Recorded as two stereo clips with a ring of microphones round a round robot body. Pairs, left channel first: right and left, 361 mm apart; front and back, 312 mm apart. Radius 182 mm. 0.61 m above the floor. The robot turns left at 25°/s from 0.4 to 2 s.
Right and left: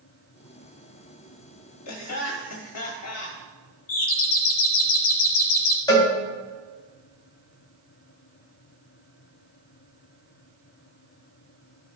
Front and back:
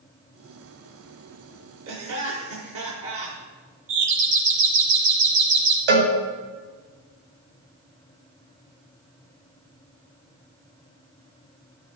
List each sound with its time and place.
1.9 s laughter: 130° right, 1.1 m; by 3.4 s 135° right, 1.1 m
3.9 s a doorbell: 135° right, 2 m
5.9 s a cowbell: 170° right, 2.5 m